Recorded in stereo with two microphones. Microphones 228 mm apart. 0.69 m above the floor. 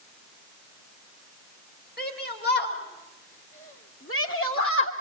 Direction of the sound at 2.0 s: 45° left (ahead or behind).